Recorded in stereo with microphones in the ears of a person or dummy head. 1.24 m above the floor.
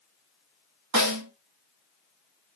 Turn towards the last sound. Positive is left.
turn(degrees=-80)